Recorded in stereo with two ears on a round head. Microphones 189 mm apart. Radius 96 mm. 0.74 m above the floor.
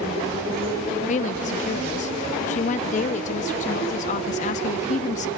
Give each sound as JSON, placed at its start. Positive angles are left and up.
{"t": 1.1, "sound": "a woman speaking", "side_deg": 35, "distance_m": 0.7}